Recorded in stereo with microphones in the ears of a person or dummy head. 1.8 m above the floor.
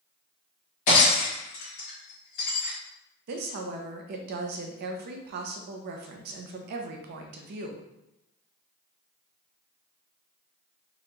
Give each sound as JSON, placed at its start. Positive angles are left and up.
{"t": 0.9, "sound": "breaking glass", "side_deg": 40, "distance_m": 1.6}
{"t": 3.3, "sound": "a woman speaking", "side_deg": -50, "distance_m": 0.6}